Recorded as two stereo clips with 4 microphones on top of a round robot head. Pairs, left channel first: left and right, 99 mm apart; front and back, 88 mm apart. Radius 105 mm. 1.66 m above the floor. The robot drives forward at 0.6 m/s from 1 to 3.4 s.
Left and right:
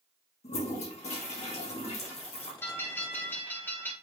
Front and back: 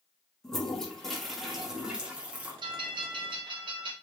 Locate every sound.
0.4 s a toilet flushing: 85° left, 2.5 m; by 2.5 s 105° left, 2.5 m
2.6 s a bell: 155° left, 1.9 m; by 3.9 s 160° left, 2.5 m